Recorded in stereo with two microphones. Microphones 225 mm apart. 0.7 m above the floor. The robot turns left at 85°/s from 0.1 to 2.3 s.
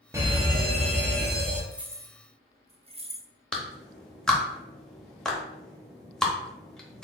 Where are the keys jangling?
Centre (ahead or behind), 0.5 m; by 3.3 s 25° right (ahead or behind), 0.5 m.